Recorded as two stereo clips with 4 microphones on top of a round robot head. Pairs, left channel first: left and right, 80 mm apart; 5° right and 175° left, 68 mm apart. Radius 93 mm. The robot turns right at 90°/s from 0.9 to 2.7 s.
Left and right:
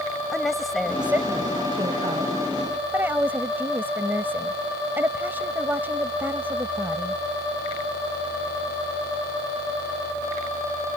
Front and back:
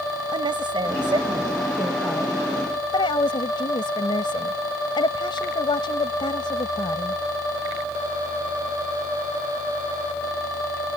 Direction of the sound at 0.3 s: Straight behind.